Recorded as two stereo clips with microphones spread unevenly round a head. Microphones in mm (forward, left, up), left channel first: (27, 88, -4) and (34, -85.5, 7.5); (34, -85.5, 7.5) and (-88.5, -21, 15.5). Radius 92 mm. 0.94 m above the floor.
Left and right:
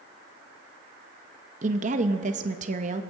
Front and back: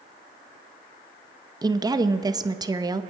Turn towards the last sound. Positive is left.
turn(degrees=-145)